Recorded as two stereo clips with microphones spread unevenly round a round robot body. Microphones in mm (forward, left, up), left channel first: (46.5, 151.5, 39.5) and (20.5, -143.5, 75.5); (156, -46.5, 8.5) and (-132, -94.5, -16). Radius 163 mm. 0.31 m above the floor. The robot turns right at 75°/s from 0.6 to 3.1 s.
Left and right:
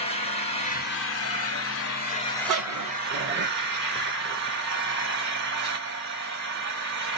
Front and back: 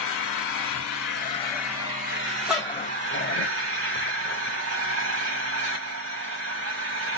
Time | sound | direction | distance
0.0 | an engine running | 25° left | 1.6 m
2.5 | a dog barking | 90° right | 0.7 m